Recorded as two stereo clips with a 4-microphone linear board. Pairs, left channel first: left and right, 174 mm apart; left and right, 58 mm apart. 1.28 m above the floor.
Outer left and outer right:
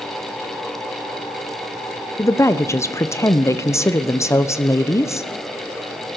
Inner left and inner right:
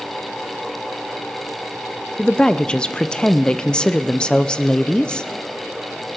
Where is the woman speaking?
15° left (ahead or behind), 0.7 m.